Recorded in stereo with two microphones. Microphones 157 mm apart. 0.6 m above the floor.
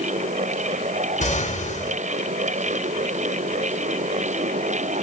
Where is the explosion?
50° left (ahead or behind), 5 m.